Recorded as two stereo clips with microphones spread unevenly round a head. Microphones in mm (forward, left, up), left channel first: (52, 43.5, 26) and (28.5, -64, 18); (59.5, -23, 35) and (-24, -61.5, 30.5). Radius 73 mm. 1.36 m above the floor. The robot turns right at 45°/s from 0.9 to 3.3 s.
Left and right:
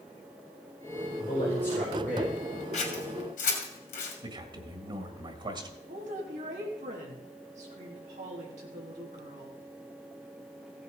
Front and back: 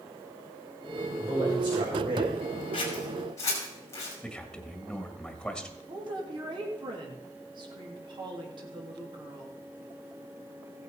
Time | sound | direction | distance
1.2 | a man speaking | 130° left | 5.5 m
2.7 | scissors | 65° left | 3 m
4.2 | a man speaking | 55° right | 1.9 m
5.9 | a woman speaking | 125° right | 3 m